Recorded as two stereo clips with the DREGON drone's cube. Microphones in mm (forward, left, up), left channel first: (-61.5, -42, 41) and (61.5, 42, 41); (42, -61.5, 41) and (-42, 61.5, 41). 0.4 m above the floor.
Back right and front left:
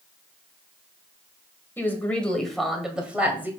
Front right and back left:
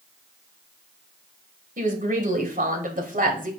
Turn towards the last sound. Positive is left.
turn(degrees=110)